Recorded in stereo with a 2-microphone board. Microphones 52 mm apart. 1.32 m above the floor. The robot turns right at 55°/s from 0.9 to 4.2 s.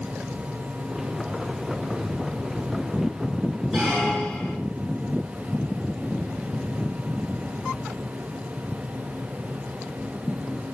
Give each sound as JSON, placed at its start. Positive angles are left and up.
{"t": 3.7, "sound": "a squeak", "side_deg": -5, "distance_m": 2.0}